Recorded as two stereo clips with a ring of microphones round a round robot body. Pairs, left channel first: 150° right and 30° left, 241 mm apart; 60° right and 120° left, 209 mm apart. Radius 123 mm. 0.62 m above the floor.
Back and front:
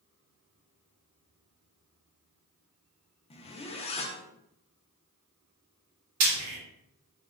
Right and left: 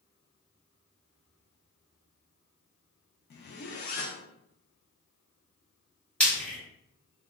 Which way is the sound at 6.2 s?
25° left.